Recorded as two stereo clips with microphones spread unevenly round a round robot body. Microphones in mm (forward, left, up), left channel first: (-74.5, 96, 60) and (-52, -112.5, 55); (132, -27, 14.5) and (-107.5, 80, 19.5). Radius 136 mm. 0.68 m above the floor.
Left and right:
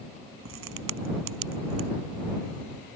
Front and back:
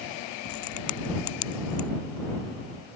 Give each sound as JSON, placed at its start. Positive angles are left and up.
{"t": 0.5, "sound": "a crack", "azimuth_deg": -55}